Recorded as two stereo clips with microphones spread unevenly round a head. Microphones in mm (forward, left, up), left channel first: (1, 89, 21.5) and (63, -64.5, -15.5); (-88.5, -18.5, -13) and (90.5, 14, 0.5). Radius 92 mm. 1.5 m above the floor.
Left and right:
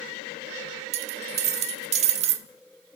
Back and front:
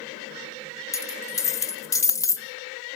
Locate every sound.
0.9 s a dropped coin: 105° right, 1.1 m